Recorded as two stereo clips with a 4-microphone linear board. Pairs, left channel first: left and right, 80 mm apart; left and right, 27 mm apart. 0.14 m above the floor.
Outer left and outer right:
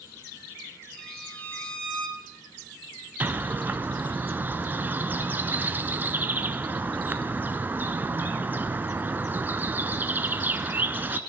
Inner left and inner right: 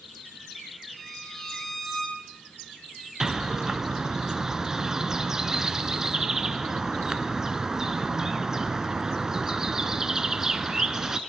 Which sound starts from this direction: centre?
A violin, at 1.0 s.